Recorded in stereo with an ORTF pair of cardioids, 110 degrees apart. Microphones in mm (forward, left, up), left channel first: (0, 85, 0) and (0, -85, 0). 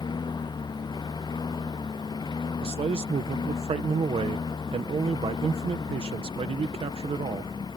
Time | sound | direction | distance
0.0 | a lawn mower | 25° left | ?
2.6 | a man speaking | 35° right | ?